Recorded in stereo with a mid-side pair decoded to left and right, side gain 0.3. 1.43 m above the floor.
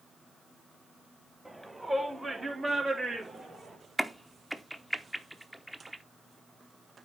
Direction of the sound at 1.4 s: 15° right.